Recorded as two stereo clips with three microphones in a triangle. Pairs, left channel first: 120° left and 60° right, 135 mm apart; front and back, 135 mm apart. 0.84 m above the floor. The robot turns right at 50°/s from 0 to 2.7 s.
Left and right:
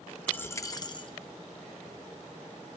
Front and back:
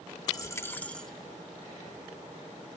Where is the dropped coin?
45° left, 0.6 m; by 1.1 s 85° left, 0.6 m.